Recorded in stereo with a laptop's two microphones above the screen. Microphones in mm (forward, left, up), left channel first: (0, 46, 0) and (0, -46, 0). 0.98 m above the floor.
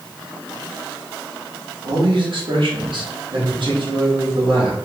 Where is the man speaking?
65° right (ahead or behind), 1.6 m.